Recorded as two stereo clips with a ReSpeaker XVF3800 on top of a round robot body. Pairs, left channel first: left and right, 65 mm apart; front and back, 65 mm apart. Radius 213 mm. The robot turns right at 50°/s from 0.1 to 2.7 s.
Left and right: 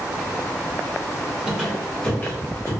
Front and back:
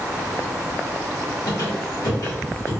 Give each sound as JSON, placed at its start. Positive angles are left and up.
{"t": 1.5, "sound": "a squeak", "azimuth_deg": -15, "distance_m": 1.3}